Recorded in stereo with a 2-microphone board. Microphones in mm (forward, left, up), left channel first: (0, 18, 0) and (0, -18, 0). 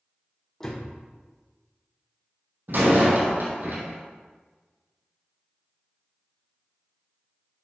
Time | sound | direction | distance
0.6 | a door slam | 10° left (ahead or behind) | 3 m
2.7 | a door slam | 60° right (ahead or behind) | 2.5 m